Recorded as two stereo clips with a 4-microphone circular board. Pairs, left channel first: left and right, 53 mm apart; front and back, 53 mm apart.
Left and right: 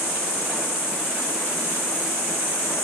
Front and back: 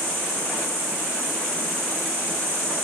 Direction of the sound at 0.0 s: 10° left.